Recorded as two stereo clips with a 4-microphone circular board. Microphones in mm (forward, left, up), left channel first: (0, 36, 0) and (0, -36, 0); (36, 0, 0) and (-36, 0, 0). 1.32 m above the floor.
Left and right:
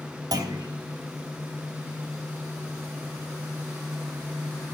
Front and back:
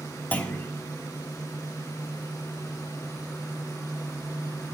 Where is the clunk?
65° right, 3 m.